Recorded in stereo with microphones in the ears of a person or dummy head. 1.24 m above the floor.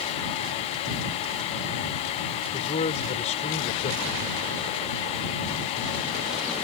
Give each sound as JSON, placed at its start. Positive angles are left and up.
{"t": 2.5, "sound": "a man speaking", "side_deg": 30}